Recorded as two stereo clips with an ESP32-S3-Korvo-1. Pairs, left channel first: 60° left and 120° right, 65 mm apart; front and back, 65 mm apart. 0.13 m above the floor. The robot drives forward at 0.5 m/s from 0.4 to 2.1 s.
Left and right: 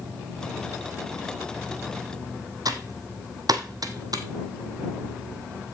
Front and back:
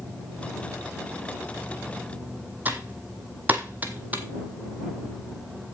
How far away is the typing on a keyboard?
About 1.1 m.